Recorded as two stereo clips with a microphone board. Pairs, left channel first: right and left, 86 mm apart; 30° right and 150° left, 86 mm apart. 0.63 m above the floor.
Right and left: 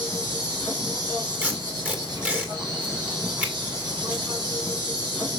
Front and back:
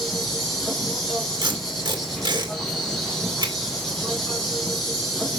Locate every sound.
0.0 s an insect: 55° left, 3 m
1.4 s tape being pulled: 165° left, 2 m